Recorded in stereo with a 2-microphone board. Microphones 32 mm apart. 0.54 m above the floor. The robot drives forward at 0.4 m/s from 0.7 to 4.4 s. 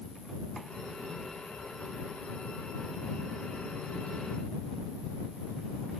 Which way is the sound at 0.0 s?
40° left (ahead or behind).